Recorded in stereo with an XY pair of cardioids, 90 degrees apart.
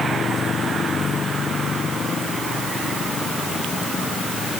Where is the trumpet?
I don't hear a trumpet.